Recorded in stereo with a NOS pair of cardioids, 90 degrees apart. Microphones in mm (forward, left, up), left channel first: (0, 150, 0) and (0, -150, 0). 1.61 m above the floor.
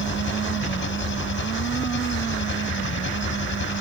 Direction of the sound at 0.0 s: 40° left.